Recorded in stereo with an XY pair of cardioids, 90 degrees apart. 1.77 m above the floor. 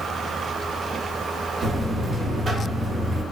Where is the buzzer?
40° right, 0.7 m.